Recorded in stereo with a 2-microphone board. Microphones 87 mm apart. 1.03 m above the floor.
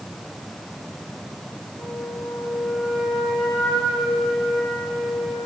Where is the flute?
10° left (ahead or behind), 6 m.